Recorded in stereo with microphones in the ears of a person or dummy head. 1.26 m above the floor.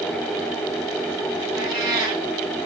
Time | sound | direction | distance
1.6 | a cat meowing | 20° right (ahead or behind) | 7.5 m